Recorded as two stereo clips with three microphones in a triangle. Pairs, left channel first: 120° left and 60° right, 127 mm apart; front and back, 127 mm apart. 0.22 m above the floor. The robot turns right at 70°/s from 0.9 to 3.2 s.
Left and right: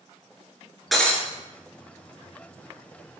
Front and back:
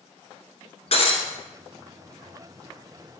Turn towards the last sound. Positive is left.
turn(degrees=-170)